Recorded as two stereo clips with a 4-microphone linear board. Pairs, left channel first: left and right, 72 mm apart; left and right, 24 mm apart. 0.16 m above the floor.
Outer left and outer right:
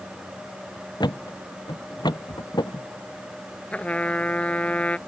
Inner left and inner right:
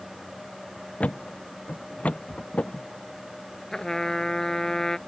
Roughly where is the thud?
Left.